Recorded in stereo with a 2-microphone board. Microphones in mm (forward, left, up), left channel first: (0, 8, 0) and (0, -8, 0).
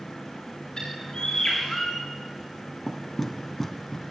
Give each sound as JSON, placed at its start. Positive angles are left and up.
{"t": 0.8, "sound": "a bird", "side_deg": 50, "distance_m": 8.0}
{"t": 2.9, "sound": "knocking", "side_deg": 15, "distance_m": 1.9}